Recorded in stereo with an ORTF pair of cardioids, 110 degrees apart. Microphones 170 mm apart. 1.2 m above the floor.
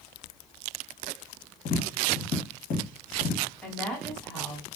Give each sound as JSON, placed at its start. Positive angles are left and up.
{"t": 1.6, "sound": "tapping", "azimuth_deg": 55, "distance_m": 1.0}
{"t": 3.6, "sound": "a woman speaking", "azimuth_deg": 5, "distance_m": 1.5}